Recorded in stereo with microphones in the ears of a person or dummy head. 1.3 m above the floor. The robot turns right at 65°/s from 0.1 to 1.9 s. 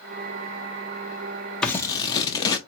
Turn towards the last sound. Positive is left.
turn(degrees=25)  # may be behind; listen again after turning